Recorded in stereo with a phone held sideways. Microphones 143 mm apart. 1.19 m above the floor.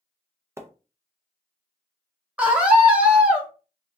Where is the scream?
10° right (ahead or behind), 1.0 m.